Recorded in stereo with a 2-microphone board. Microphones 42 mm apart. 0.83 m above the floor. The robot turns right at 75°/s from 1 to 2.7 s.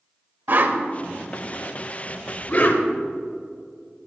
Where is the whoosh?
55° right (ahead or behind), 0.8 m; by 2.8 s 45° left (ahead or behind), 0.8 m.